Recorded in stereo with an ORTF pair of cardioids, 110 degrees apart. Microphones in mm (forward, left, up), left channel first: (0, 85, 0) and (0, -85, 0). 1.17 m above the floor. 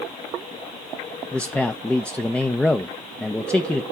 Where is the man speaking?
5° left, 0.6 m.